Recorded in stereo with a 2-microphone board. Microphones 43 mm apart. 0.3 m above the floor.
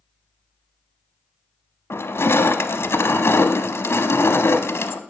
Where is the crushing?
70° left (ahead or behind), 0.7 m.